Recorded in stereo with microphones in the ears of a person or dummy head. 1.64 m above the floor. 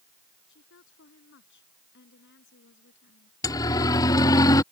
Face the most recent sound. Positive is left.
turn(degrees=20)  # may be behind; listen again after turning